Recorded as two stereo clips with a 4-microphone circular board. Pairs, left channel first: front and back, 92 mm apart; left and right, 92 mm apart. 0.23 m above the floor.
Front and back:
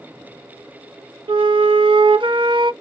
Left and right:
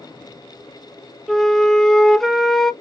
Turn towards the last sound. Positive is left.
turn(degrees=180)